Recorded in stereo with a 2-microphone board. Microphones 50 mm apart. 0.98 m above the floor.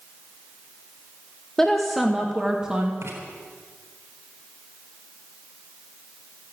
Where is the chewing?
I don't hear chewing.